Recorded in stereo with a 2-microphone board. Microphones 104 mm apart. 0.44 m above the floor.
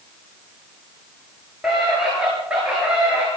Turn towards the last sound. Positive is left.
turn(degrees=-10)  # may be behind; listen again after turning